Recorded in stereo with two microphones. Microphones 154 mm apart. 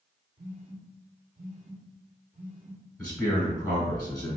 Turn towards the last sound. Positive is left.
turn(degrees=5)  # may be behind; listen again after turning